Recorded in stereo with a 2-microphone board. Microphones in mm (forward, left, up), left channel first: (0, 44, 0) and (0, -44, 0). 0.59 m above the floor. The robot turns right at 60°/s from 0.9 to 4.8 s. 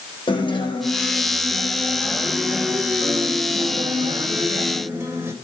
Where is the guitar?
100° left, 3 m; by 5.3 s 30° right, 3 m.